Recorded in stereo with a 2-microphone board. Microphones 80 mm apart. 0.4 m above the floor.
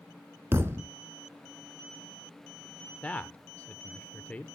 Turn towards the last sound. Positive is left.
turn(degrees=20)  # may be behind; listen again after turning